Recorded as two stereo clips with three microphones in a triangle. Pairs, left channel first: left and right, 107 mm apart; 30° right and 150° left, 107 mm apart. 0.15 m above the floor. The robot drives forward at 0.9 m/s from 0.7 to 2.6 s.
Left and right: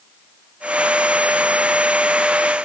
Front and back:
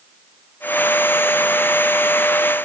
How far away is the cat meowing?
No cat meowing in this recording.